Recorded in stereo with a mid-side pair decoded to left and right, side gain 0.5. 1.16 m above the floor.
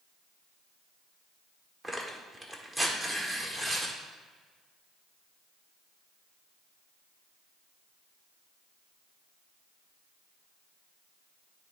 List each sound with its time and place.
1.8 s tearing paper: 25° right, 1.5 m